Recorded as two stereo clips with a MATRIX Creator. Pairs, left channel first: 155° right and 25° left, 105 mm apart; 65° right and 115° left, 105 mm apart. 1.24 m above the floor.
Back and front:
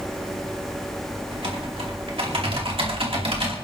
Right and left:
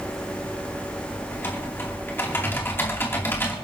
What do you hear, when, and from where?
1.3 s typing on a keyboard: straight ahead, 2.5 m